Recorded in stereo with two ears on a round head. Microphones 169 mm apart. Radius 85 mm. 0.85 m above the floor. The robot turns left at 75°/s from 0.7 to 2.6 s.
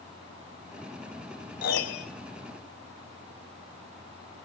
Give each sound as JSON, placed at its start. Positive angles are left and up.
{"t": 1.6, "sound": "a piano", "azimuth_deg": 120, "distance_m": 3.5}